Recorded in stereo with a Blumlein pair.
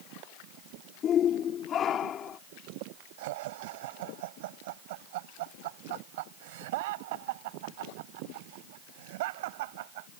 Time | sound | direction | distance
1.0 | a shout | 25° left | ?
3.2 | laughter | 50° right | ?